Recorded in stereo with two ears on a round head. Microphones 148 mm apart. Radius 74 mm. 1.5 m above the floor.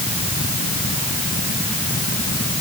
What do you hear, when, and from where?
Only background noise.